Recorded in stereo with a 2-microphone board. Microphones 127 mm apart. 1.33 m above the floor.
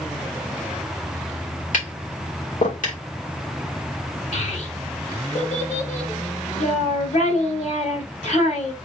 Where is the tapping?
75° left (ahead or behind), 1.9 m.